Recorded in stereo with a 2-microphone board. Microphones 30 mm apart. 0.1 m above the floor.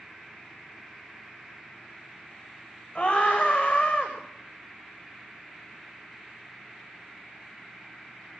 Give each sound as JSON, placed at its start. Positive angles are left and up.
{"t": 3.0, "sound": "a scream", "side_deg": 50, "distance_m": 7.5}